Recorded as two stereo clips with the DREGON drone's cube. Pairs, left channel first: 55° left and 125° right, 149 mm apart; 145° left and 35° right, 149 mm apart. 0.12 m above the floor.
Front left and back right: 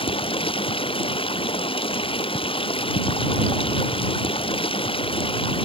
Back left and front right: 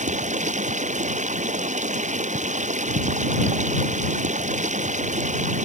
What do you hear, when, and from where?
0.0 s running water: straight ahead